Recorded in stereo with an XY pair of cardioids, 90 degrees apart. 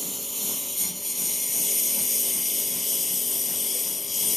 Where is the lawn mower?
Straight ahead; by 4.4 s 35° left.